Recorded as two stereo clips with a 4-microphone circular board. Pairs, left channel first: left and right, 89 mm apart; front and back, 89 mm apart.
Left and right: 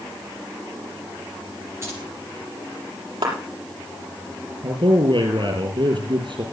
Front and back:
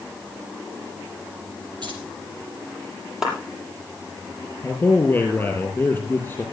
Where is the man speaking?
65° right, 5 m.